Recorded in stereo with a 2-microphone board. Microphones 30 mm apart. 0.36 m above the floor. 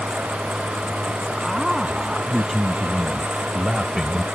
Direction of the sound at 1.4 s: 5° right (ahead or behind).